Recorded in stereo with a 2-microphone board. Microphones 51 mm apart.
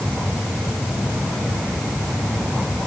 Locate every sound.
Only background noise.